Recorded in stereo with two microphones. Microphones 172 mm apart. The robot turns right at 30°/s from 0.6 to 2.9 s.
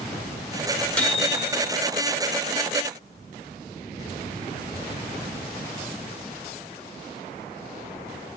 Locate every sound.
1.0 s a microwave: 10° left (ahead or behind), 2.0 m; by 1.7 s 15° right (ahead or behind), 2.0 m